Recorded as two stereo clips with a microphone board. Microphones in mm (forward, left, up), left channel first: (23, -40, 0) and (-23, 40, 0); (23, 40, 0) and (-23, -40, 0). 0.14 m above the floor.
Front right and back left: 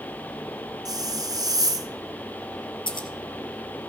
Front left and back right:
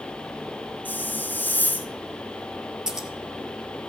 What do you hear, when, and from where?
0.8 s a hiss: 120° left, 0.8 m
2.9 s scissors: 35° right, 1.6 m